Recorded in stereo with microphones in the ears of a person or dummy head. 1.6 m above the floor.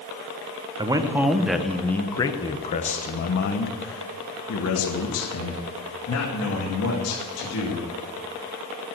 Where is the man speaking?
20° right (ahead or behind), 1.2 m; by 7.9 s 85° left, 3 m.